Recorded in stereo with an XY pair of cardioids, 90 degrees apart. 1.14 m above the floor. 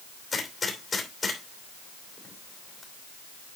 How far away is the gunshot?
About 3 m.